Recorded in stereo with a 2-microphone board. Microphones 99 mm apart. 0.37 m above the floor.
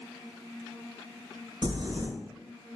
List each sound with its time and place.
1.6 s crumpling: 50° right (ahead or behind), 0.6 m